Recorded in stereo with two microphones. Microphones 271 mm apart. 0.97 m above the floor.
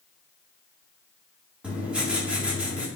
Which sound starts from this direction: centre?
Writing, at 1.6 s.